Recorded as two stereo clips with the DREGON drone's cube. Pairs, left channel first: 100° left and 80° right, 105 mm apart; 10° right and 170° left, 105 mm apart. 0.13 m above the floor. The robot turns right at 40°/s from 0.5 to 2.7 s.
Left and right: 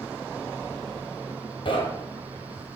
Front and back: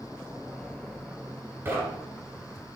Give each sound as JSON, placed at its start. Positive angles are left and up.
{"t": 1.6, "sound": "knocking", "azimuth_deg": 110, "distance_m": 1.7}